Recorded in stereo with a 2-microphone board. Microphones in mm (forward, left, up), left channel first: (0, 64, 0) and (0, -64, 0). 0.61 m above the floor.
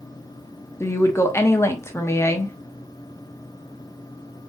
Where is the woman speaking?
20° left (ahead or behind), 0.6 m.